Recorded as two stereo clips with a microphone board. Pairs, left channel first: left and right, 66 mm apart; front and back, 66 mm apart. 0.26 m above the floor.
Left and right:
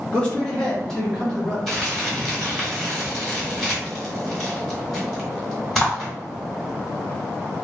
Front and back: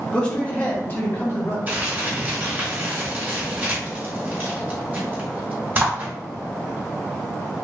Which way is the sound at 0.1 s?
45° left.